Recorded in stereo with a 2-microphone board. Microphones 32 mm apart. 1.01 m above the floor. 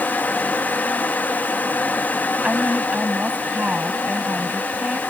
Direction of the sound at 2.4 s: 45° right (ahead or behind).